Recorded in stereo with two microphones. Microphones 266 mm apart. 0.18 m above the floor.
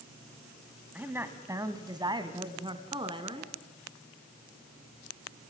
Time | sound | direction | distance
0.9 | a woman speaking | 5° right (ahead or behind) | 1.5 m